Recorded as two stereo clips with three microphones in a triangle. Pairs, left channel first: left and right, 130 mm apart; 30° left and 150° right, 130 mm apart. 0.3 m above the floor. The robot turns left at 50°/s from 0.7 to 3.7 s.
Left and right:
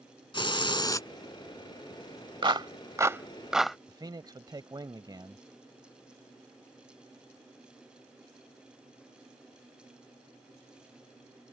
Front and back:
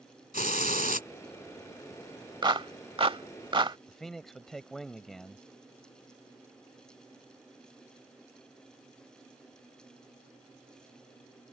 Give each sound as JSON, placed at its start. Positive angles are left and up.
{"t": 0.3, "sound": "a hiss", "azimuth_deg": 40}
{"t": 2.4, "sound": "a clap", "azimuth_deg": -115}
{"t": 3.9, "sound": "a man speaking", "azimuth_deg": -55}